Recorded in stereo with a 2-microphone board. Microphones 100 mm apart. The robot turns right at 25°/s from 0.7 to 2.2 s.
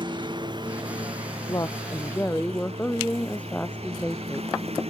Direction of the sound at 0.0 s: 130° right.